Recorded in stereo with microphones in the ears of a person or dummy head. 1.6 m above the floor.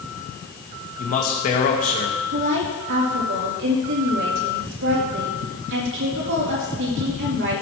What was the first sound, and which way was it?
A man speaking, 40° left (ahead or behind).